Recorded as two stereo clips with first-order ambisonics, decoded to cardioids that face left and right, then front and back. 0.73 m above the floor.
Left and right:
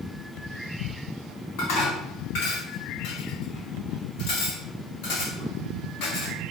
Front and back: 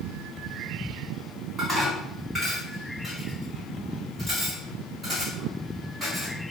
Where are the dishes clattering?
100° left, 4 m.